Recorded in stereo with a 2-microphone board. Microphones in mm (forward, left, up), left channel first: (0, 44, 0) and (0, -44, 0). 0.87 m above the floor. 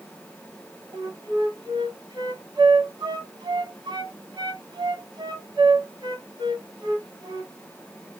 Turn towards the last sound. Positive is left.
turn(degrees=-50)  # may be behind; listen again after turning